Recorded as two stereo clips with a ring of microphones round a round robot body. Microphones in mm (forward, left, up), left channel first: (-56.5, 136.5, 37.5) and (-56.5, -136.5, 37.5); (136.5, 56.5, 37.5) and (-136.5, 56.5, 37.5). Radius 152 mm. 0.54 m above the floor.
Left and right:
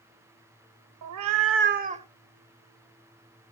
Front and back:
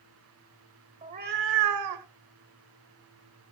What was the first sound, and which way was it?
A cat meowing, 110° right.